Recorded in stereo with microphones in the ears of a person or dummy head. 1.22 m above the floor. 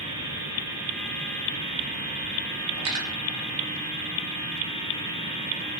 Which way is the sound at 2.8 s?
75° right (ahead or behind).